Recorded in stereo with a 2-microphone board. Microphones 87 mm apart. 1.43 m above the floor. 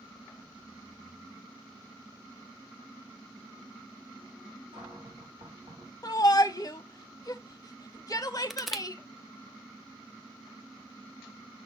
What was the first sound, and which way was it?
A cupboard door, 85° right.